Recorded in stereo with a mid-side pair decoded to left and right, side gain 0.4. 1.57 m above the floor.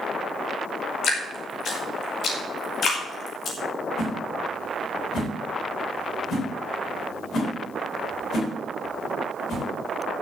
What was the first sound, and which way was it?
Dripping, 60° left.